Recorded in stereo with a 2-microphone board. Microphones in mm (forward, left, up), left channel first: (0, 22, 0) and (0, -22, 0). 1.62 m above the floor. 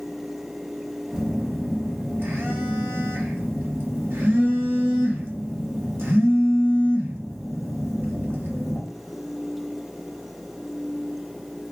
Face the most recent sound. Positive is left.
turn(degrees=-55)  # may be behind; listen again after turning